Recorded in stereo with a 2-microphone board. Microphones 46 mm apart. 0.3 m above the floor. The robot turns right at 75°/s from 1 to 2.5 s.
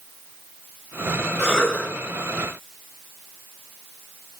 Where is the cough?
10° right, 1.6 m; by 1.9 s 30° left, 1.6 m.